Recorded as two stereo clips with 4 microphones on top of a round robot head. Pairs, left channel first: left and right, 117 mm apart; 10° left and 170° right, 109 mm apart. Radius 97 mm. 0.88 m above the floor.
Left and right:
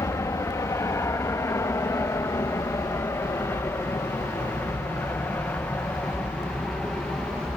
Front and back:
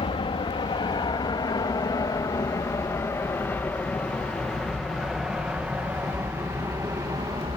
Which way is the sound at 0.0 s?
30° left.